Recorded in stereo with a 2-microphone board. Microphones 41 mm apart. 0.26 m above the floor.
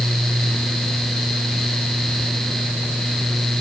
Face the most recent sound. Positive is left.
No sound to turn to.